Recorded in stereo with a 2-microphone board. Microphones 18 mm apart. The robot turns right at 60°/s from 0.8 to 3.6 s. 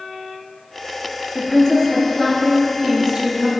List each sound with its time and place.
1.4 s a woman speaking: 115° left, 1.9 m; by 3.6 s 110° right, 1.9 m